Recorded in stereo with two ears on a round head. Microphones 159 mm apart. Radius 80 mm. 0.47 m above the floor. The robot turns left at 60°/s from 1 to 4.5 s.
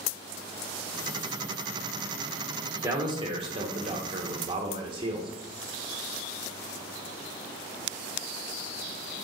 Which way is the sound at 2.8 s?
30° right.